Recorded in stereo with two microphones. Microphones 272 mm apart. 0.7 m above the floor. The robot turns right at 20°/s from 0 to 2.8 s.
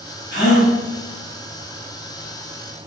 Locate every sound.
0.3 s a gasp: 45° left (ahead or behind), 4.5 m; by 0.7 s 55° left (ahead or behind), 4.5 m